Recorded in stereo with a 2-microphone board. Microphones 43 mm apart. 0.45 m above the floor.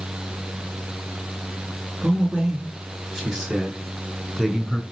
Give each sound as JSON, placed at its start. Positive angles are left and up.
{"t": 2.0, "sound": "a man speaking", "side_deg": -20, "distance_m": 5.0}